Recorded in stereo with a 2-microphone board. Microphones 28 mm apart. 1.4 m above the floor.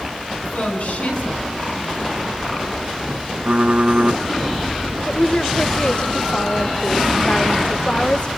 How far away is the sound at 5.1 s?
About 1.4 m.